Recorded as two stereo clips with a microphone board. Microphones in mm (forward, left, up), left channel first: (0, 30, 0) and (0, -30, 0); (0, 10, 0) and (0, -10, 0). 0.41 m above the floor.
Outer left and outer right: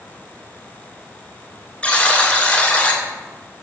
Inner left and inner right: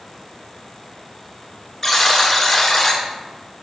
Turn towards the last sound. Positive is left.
turn(degrees=20)  # may be behind; listen again after turning